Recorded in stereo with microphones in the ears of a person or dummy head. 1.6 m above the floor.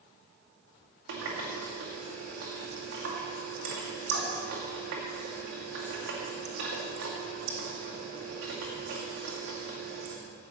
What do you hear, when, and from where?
1.1 s a running tap: 75° right (ahead or behind), 2.5 m